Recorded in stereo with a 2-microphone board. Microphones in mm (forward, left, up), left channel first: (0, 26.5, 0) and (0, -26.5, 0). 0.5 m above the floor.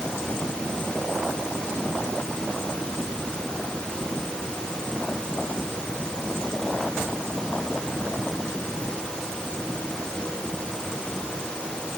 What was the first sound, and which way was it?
Only background noise.